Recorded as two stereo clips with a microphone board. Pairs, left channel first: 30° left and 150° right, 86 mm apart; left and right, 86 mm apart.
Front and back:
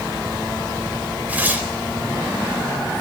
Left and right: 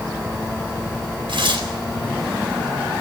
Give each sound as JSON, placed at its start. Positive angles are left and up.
{"t": 1.3, "sound": "tearing paper", "azimuth_deg": -80, "distance_m": 4.0}